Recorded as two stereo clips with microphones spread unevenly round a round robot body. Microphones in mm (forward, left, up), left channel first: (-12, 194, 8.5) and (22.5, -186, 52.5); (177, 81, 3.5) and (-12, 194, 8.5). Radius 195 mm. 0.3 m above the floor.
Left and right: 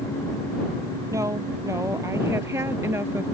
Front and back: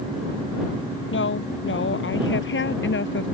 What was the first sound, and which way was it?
A woman speaking, 5° right.